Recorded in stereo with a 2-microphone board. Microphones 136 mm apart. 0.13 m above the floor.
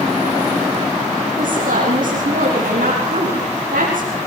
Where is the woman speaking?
80° right, 6.5 m.